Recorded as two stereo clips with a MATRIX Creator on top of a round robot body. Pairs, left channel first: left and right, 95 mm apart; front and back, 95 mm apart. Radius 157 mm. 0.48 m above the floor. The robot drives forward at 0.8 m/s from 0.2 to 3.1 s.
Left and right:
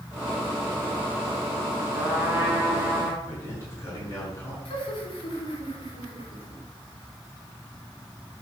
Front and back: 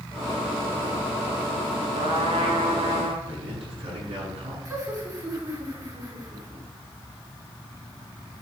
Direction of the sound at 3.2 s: 155° left.